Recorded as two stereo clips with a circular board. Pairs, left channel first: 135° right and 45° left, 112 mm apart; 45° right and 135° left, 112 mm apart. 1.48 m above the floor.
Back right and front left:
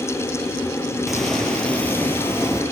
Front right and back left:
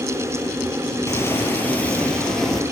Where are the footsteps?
50° right, 1.5 m; by 2.6 s 130° right, 1.6 m.